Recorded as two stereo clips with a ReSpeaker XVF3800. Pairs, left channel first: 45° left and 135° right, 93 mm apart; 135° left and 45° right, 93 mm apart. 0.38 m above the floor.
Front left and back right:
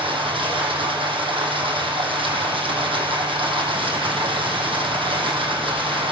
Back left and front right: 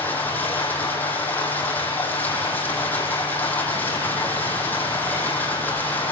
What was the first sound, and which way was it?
Running water, 155° right.